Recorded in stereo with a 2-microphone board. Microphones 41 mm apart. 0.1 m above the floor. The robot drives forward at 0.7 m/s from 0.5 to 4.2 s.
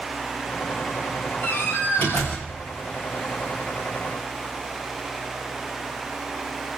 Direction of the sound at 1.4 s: 40° left (ahead or behind).